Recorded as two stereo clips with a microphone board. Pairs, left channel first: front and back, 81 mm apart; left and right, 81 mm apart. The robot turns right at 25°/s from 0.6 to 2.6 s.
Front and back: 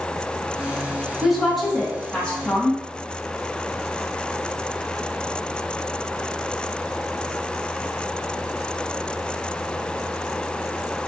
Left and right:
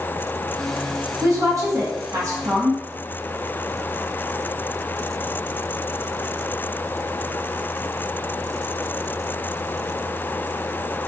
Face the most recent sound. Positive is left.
turn(degrees=-60)